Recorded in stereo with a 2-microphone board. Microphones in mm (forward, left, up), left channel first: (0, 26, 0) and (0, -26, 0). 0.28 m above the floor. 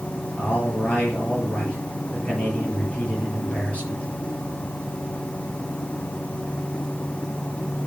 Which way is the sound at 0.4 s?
25° left (ahead or behind).